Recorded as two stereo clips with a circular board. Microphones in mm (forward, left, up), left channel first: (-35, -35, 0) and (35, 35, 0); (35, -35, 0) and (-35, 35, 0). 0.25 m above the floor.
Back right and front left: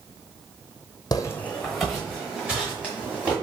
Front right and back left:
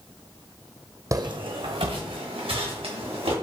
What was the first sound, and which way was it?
Footsteps, 175° right.